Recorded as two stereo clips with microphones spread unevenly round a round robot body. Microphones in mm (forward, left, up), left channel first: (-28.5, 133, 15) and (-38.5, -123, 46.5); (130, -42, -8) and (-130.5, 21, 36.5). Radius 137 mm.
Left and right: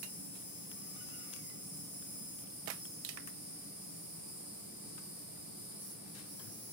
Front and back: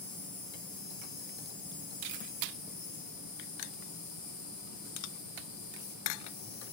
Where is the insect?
5° left, 7 m.